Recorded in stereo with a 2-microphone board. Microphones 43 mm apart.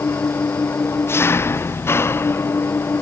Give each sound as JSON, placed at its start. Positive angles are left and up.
{"t": 0.0, "sound": "an engine running", "side_deg": 75}